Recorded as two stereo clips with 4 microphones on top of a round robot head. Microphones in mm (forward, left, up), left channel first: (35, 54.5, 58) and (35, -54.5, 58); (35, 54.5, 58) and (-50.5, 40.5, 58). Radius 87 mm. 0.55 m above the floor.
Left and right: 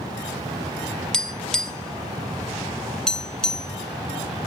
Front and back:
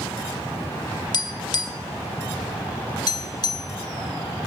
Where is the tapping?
5° left, 1.1 m.